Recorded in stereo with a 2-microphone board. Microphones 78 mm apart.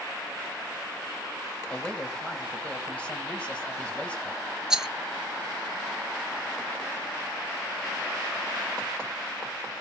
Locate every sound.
1.7 s a man speaking: 15° left (ahead or behind), 3 m
4.7 s a rattle: 5° right (ahead or behind), 0.7 m